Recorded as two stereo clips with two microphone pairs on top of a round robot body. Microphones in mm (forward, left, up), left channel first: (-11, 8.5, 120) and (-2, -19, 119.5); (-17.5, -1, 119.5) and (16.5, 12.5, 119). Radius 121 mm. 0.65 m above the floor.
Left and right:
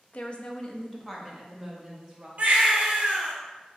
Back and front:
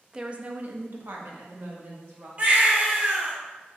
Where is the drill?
I don't hear a drill.